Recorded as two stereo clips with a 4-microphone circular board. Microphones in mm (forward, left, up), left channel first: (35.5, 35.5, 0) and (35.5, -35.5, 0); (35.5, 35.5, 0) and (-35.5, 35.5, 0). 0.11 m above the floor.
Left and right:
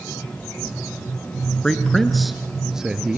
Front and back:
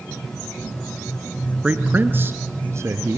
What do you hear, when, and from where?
1.6 s a man speaking: 155° left, 1.3 m; by 3.2 s 165° right, 1.8 m